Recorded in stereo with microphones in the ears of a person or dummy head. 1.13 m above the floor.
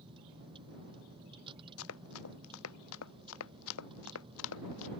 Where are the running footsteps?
80° left.